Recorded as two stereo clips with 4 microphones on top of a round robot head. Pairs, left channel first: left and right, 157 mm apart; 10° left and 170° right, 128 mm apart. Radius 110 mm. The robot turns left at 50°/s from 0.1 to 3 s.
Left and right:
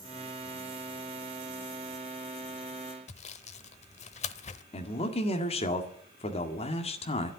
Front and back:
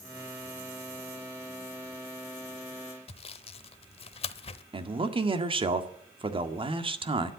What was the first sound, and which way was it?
Sawing, 50° left.